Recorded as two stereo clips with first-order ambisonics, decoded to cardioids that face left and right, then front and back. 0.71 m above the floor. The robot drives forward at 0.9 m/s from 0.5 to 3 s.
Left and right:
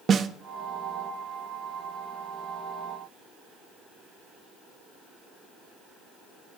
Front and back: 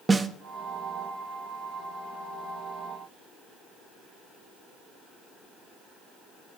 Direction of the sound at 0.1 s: 120° right.